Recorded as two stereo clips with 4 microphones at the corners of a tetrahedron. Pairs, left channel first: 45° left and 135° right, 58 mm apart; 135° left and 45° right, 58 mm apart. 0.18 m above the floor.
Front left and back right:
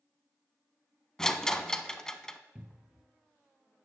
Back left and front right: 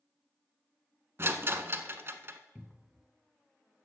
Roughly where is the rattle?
Ahead right.